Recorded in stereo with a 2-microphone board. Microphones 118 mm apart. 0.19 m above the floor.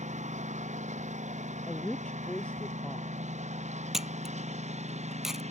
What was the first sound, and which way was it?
A lawn mower, 85° right.